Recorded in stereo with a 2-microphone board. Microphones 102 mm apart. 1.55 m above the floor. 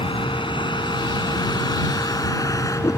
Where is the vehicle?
55° left (ahead or behind); by 3.0 s 30° left (ahead or behind).